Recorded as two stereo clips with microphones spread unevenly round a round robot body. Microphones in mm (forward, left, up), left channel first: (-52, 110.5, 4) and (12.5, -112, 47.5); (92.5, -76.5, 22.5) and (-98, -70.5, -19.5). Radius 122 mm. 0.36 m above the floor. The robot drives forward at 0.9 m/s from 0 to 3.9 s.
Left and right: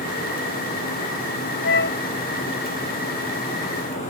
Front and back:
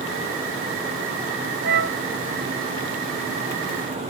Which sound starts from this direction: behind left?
A flute, at 1.6 s.